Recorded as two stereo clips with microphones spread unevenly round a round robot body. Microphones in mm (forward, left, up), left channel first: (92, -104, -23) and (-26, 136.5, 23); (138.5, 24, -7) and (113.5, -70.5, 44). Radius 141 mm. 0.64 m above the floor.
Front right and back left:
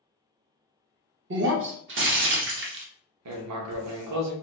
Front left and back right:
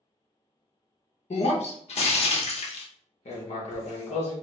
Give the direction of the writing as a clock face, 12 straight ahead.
9 o'clock.